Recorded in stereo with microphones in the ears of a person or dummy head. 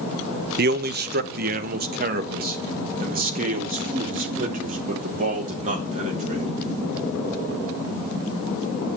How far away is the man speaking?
About 1.0 m.